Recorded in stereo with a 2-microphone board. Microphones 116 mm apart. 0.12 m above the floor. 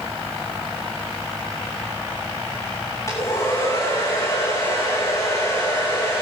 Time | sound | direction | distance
3.1 | a hair dryer | 30° left (ahead or behind) | 3 m